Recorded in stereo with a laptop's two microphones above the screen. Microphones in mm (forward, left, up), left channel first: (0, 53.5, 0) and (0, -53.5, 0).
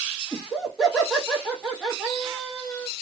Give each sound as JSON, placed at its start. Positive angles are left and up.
{"t": 0.3, "sound": "laughter", "side_deg": 0, "distance_m": 1.4}